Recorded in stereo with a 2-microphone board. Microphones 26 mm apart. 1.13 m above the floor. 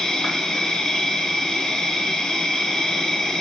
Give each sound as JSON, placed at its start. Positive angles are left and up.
{"t": 0.0, "sound": "an insect", "side_deg": 20, "distance_m": 1.1}